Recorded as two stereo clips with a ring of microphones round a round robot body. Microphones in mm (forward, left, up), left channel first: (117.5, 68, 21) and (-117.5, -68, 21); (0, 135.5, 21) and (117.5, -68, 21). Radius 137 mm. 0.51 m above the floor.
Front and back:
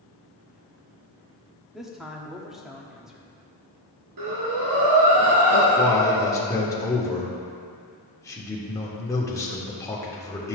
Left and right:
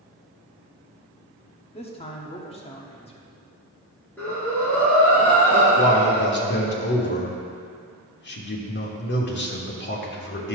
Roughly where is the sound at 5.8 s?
Left.